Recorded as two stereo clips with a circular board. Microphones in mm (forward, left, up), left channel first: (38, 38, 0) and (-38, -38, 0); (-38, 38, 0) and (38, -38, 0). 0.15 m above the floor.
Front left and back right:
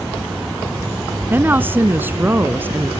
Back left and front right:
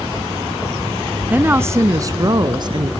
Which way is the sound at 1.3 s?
95° right.